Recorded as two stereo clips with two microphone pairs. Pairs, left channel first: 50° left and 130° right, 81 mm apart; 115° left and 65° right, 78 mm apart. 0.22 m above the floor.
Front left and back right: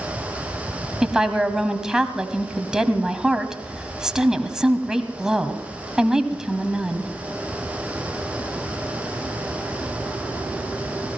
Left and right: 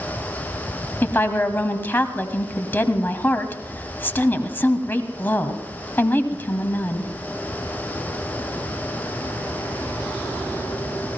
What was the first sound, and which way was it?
A woman speaking, 150° left.